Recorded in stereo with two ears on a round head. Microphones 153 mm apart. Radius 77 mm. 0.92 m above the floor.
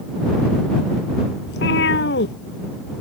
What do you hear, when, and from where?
1.5 s a cat meowing: 70° left (ahead or behind)